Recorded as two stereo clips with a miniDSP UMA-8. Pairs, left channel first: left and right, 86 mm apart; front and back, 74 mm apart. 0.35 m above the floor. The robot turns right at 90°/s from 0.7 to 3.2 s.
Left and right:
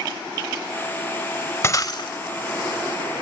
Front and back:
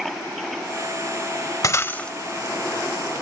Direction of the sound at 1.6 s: 35° left.